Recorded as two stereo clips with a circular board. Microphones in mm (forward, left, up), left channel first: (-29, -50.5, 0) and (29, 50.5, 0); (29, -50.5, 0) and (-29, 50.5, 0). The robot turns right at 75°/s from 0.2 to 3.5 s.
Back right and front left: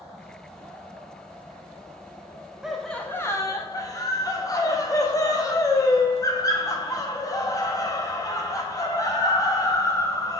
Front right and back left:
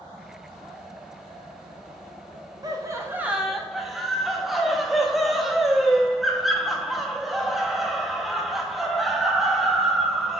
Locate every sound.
2.6 s laughter: 140° left, 0.6 m; by 10.4 s 150° right, 0.6 m